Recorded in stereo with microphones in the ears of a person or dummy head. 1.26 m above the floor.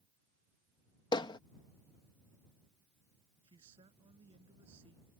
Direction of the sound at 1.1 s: 30° left (ahead or behind).